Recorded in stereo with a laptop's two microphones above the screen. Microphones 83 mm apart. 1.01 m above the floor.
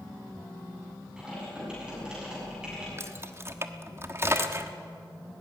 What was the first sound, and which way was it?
Typing on a keyboard, 10° right (ahead or behind).